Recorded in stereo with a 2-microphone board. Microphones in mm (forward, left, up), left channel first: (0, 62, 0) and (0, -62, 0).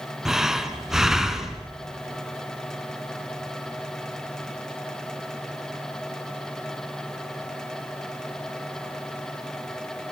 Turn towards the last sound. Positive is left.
turn(degrees=-5)  # may be behind; listen again after turning